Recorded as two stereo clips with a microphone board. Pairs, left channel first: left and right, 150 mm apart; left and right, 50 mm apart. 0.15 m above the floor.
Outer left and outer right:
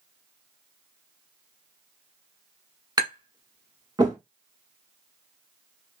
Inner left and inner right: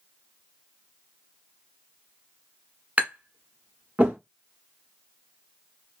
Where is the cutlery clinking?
I don't hear cutlery clinking.